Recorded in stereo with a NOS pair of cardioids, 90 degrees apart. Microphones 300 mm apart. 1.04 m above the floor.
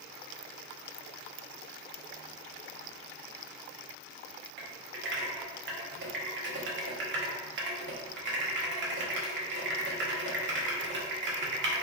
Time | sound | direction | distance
4.6 | typing on a keyboard | 40° right | 0.8 m